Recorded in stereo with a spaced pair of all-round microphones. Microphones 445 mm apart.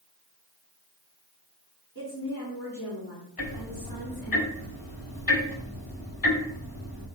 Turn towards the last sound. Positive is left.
turn(degrees=50)  # may be behind; listen again after turning